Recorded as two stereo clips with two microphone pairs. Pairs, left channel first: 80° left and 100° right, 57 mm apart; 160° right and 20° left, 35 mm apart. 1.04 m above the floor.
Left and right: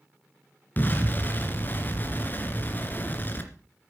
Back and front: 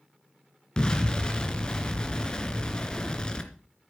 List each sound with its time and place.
0.8 s an explosion: 135° left, 2.5 m